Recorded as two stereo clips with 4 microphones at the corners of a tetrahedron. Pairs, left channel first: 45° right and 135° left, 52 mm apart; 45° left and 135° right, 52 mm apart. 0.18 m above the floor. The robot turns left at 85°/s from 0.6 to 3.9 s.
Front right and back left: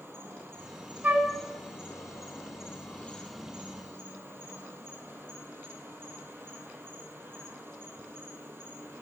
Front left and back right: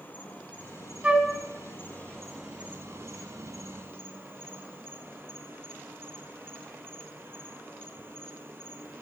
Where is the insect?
100° left, 1.4 m; by 9.0 s straight behind, 1.4 m.